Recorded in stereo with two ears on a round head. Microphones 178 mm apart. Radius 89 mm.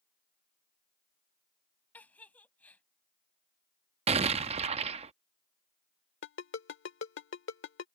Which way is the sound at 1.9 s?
10° left (ahead or behind).